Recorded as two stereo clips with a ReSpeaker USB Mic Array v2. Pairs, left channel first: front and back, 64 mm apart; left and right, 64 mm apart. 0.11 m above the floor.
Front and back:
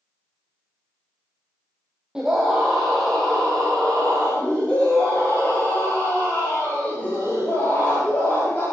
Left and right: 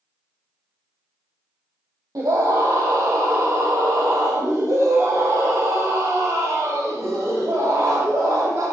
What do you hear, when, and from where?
2.1 s a scream: 100° right, 3.5 m; by 8.6 s 55° right, 10 m